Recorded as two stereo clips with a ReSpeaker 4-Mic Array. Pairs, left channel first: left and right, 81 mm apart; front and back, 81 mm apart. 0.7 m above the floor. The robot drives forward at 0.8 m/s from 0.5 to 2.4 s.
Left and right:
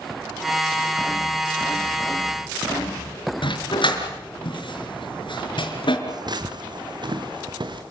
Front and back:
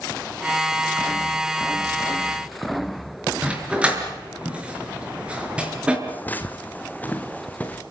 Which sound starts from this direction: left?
A dog barking, at 3.4 s.